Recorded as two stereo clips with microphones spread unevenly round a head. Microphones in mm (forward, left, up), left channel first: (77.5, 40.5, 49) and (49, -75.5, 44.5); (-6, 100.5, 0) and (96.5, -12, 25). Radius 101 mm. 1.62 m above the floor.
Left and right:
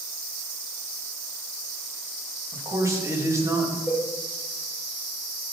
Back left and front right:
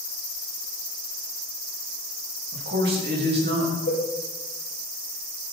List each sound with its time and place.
2.5 s a man speaking: 40° right, 3.5 m
3.9 s a cowbell: 170° left, 3.5 m